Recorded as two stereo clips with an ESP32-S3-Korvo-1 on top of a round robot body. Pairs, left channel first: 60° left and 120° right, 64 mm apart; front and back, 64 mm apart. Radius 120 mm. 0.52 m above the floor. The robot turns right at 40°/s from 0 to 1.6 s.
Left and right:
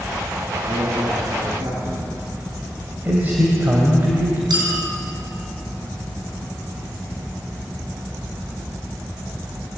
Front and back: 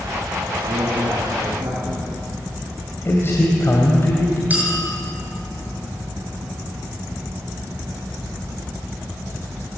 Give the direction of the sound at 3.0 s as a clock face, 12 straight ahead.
2 o'clock.